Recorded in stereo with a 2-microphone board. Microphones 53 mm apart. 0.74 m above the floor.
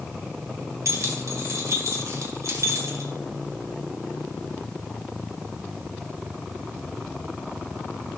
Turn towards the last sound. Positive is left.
turn(degrees=-70)  # may be behind; listen again after turning